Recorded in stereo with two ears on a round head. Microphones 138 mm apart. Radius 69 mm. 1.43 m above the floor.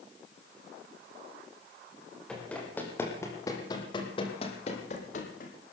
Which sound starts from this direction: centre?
Running footsteps, at 2.3 s.